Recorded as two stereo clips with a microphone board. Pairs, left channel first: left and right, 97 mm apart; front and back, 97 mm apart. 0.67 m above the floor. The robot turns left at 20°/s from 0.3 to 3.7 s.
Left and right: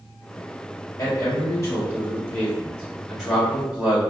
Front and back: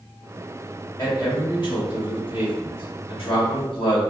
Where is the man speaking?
45° left, 2.0 m; by 4.0 s 10° right, 2.0 m.